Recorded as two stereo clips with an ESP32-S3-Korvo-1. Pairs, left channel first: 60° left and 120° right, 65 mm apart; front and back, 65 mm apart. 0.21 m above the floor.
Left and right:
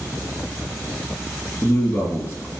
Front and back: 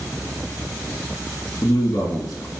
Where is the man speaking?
10° left, 2.5 m.